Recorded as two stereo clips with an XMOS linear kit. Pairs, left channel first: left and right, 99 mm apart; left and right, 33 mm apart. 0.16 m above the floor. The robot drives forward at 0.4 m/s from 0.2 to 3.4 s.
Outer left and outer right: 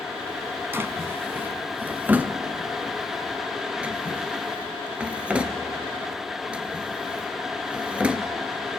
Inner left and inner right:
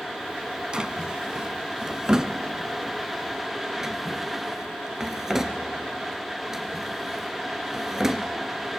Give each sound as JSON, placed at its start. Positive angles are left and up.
{"t": 0.7, "sound": "a drawer", "side_deg": -25, "distance_m": 0.7}